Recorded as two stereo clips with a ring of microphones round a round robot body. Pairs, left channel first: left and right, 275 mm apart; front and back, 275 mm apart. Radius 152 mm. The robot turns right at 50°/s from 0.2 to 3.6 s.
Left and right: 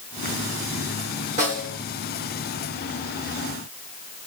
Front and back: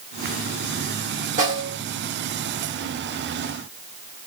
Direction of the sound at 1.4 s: 140° right.